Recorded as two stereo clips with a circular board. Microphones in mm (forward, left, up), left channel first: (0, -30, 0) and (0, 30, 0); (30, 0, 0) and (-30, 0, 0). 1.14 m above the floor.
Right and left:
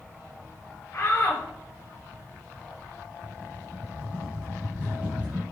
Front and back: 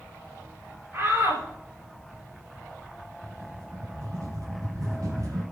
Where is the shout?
135° right, 6 m.